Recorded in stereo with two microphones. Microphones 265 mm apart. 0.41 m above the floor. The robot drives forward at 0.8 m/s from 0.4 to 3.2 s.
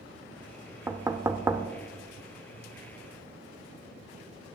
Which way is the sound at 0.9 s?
10° right (ahead or behind).